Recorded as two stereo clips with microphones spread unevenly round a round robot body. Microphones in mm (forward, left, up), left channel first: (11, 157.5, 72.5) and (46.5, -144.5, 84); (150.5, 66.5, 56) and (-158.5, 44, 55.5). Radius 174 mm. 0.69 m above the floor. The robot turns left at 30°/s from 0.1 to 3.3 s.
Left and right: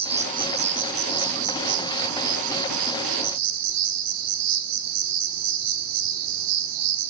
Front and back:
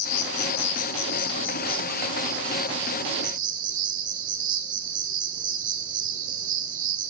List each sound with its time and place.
0.0 s an insect: 10° right, 1.1 m; by 7.1 s 110° right, 1.1 m